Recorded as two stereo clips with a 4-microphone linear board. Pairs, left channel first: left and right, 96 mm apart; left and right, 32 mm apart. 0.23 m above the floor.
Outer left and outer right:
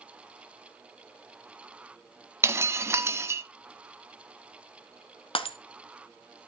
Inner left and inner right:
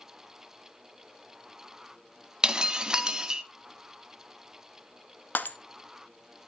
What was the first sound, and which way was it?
Breaking glass, 25° right (ahead or behind).